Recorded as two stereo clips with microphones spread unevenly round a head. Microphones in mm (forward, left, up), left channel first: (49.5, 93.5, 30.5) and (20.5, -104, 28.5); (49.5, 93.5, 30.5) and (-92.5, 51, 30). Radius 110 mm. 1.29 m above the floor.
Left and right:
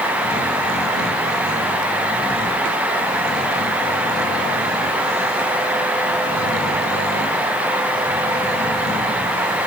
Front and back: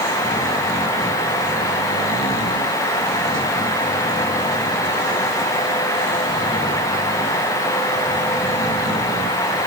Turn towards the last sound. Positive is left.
No sound to turn to.